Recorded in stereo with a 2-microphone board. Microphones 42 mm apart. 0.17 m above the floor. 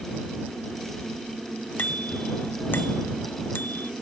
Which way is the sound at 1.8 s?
40° left (ahead or behind).